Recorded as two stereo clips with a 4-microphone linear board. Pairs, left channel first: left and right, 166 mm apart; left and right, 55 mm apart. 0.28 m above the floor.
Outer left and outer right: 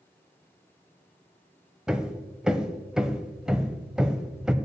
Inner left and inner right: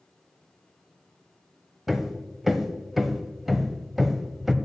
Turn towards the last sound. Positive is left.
turn(degrees=-5)  # may be behind; listen again after turning